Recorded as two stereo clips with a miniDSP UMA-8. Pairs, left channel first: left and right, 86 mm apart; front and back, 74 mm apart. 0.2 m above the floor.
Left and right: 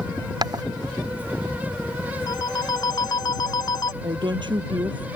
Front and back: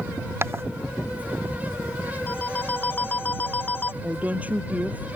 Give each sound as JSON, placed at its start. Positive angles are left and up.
{"t": 0.4, "sound": "footsteps", "azimuth_deg": -125}
{"t": 2.3, "sound": "a phone ringing", "azimuth_deg": 60}
{"t": 4.0, "sound": "a woman speaking", "azimuth_deg": -110}